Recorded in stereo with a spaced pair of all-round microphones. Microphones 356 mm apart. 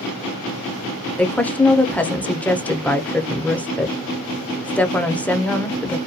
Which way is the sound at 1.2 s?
5° left (ahead or behind).